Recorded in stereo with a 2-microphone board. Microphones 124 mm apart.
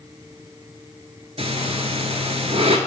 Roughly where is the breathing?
Right.